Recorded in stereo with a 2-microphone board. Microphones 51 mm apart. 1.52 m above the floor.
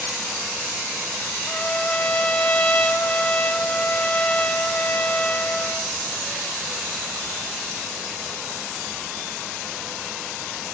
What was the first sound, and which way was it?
A trumpet, 25° left (ahead or behind).